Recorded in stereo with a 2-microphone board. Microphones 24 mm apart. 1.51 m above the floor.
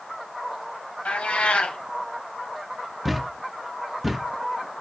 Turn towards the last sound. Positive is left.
turn(degrees=-5)  # may be behind; listen again after turning